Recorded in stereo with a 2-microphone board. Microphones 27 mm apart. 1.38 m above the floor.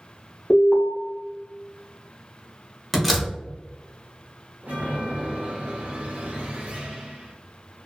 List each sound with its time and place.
0.5 s an alarm: 40° left (ahead or behind), 1.0 m
2.9 s a door slam: centre (ahead or behind), 0.8 m
4.6 s a chime: 75° right (ahead or behind), 0.8 m